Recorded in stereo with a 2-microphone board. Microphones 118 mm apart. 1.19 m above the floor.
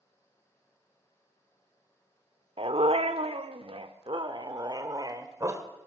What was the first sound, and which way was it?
A dog barking, 55° right (ahead or behind).